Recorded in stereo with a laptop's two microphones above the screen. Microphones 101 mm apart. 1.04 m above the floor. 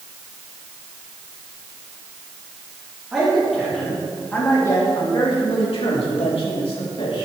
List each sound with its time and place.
3.1 s a man speaking: 5° right (ahead or behind), 3 m; by 7.2 s 70° left (ahead or behind), 3.5 m